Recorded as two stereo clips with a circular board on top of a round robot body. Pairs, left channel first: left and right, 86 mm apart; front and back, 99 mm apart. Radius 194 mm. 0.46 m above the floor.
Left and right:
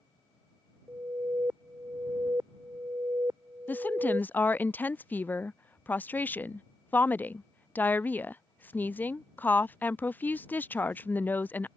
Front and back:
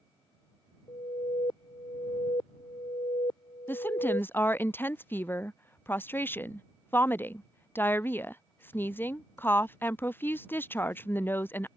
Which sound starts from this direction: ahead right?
An alarm, at 0.9 s.